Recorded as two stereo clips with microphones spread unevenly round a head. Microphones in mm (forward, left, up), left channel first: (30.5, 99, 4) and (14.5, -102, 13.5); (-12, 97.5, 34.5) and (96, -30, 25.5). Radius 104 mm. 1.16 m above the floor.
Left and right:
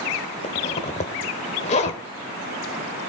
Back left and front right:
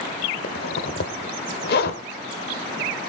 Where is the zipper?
140° left, 1.2 m.